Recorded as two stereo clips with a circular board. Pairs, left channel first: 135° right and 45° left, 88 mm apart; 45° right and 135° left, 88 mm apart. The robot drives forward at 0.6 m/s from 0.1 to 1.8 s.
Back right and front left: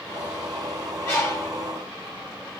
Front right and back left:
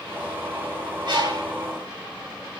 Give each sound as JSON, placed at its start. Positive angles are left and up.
{"t": 1.1, "sound": "a bird", "azimuth_deg": 165, "distance_m": 1.1}